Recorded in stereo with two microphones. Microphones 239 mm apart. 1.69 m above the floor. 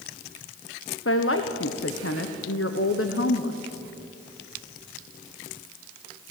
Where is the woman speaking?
65° left (ahead or behind), 1.2 m.